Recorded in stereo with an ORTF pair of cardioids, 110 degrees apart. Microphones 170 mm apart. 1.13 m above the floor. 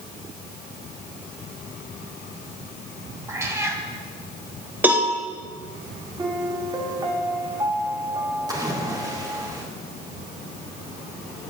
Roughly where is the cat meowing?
Ahead.